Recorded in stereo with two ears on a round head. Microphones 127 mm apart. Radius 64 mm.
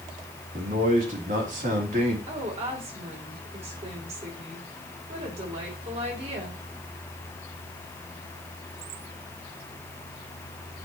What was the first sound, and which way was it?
A man speaking, 60° right (ahead or behind).